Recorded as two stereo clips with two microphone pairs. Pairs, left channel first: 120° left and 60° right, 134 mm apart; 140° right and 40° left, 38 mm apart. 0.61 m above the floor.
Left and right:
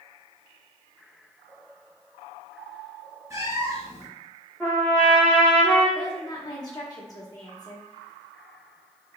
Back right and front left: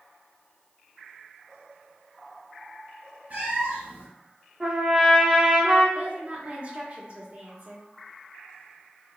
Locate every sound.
3.3 s a cat meowing: 5° left, 1.1 m
4.6 s a trumpet: 70° left, 1.1 m
6.0 s a woman speaking: 70° left, 0.8 m